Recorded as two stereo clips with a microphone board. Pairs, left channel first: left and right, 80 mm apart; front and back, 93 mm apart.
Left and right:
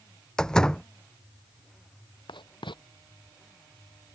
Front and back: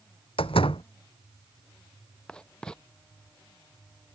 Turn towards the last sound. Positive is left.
turn(degrees=80)